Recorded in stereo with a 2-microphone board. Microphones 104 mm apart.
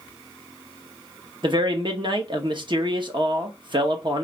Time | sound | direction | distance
1.4 | a man speaking | 50° right (ahead or behind) | 0.9 m